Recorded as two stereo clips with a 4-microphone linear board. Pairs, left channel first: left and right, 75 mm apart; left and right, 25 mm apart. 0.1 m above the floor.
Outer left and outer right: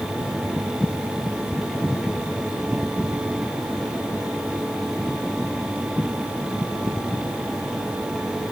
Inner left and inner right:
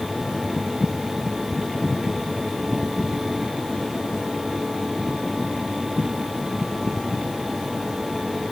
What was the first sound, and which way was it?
Only background noise.